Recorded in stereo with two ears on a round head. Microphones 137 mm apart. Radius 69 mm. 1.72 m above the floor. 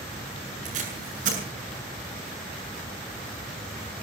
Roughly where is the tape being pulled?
Right.